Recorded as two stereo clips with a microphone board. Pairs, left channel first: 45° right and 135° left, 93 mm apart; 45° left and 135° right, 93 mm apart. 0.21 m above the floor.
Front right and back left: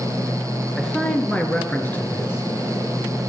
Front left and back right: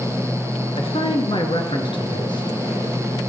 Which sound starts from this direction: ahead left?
A man speaking, at 0.8 s.